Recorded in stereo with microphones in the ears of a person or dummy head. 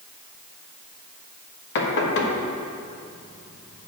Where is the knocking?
65° left (ahead or behind), 1.2 m.